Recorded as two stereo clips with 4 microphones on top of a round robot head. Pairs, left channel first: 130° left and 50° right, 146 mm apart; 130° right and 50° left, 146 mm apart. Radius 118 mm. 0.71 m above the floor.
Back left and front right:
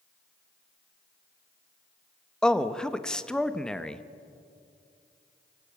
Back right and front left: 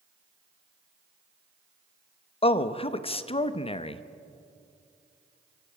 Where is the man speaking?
150° right, 1.0 m.